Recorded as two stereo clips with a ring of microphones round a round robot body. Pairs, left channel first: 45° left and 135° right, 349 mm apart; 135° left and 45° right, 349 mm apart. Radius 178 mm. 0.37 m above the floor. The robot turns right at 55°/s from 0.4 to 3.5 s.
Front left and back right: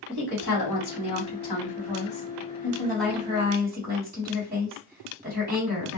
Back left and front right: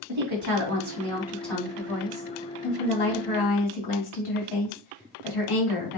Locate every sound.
0.1 s a woman speaking: 10° right, 2.5 m; by 6.0 s 160° left, 2.5 m